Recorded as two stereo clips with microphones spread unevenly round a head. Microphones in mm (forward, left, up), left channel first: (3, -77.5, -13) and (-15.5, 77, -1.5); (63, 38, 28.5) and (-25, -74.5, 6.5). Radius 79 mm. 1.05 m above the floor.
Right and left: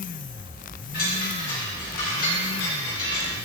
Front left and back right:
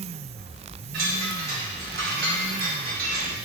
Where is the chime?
115° right, 2.5 m.